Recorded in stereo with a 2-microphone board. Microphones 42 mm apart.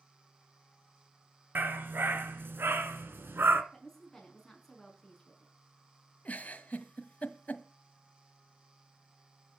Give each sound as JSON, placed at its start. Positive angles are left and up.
{"t": 1.6, "sound": "a dog barking", "side_deg": -60, "distance_m": 2.5}
{"t": 3.7, "sound": "a woman speaking", "side_deg": 10, "distance_m": 5.5}
{"t": 6.2, "sound": "a giggle", "side_deg": 40, "distance_m": 1.7}